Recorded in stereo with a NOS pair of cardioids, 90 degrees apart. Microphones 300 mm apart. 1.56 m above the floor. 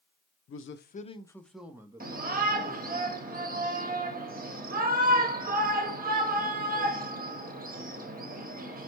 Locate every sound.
0.5 s a man speaking: 50° left, 0.7 m; by 3.0 s 30° right, 1.5 m
2.0 s a shout: 30° right, 1.4 m